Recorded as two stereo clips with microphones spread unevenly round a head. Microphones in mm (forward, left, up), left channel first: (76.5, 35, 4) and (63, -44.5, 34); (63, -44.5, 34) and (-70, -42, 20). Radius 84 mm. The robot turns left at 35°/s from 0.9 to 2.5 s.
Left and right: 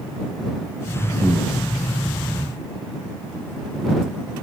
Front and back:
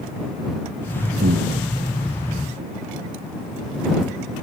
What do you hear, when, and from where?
1.2 s breathing: 170° right; by 1.5 s straight behind